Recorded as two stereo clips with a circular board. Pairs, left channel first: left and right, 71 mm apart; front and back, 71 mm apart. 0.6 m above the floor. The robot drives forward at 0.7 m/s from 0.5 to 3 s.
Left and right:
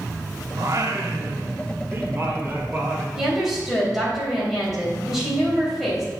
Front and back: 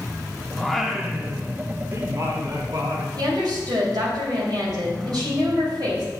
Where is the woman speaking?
175° right, 4 m.